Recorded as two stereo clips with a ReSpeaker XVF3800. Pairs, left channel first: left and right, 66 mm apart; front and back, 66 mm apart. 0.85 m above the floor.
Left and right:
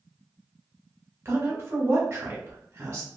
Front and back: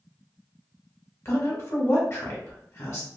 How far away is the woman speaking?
About 1.1 m.